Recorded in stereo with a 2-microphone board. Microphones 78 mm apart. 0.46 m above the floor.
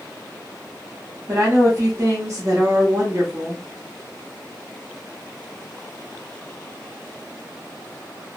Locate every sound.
1.3 s a woman speaking: 35° right (ahead or behind), 1.1 m